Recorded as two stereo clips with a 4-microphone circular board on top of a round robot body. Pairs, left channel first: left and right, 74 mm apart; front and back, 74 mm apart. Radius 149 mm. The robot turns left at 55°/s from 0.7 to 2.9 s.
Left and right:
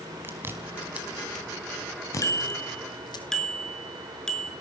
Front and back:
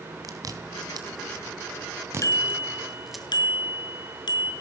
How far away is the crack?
No crack in this recording.